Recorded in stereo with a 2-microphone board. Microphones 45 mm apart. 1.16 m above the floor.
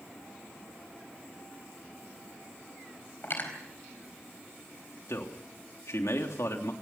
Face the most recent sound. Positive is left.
turn(degrees=80)